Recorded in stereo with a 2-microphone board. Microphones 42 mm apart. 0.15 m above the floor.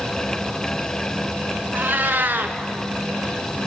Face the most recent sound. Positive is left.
turn(degrees=-50)  # may be behind; listen again after turning